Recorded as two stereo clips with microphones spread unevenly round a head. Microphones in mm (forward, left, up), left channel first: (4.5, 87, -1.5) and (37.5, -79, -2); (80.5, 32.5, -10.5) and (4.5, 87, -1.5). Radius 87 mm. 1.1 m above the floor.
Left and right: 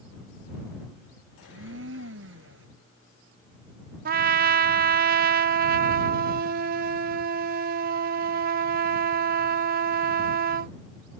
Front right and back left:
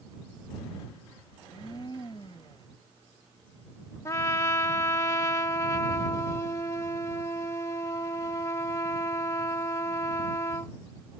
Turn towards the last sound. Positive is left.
turn(degrees=-105)